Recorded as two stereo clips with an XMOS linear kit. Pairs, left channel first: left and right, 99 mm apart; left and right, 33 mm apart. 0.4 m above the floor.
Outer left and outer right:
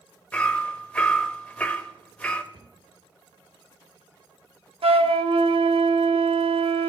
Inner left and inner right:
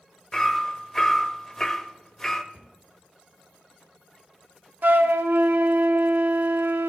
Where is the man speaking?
I don't hear a man speaking.